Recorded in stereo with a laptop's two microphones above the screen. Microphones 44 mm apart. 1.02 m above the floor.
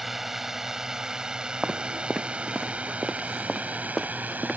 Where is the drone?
5° right (ahead or behind); by 4.6 s 40° right (ahead or behind).